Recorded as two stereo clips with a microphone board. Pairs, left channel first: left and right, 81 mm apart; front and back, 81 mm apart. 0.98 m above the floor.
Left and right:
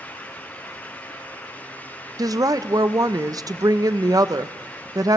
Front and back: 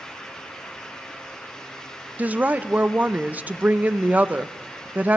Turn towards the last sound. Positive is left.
turn(degrees=-115)